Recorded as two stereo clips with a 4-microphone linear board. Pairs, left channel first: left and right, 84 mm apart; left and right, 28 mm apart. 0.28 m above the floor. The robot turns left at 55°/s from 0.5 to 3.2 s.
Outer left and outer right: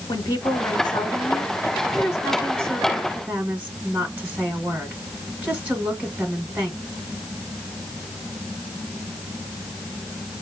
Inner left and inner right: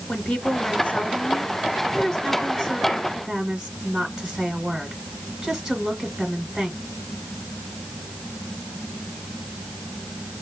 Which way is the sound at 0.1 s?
125° left.